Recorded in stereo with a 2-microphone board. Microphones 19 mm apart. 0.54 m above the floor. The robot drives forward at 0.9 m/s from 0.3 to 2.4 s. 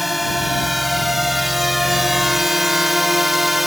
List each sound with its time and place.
0.0 s a drone: 5° right (ahead or behind); by 3.7 s 15° right (ahead or behind)